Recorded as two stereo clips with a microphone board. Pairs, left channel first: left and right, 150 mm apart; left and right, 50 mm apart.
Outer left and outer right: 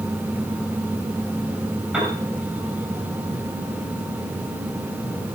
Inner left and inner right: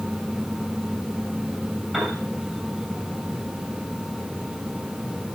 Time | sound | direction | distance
1.9 | a piano | 10° right (ahead or behind) | 6.5 m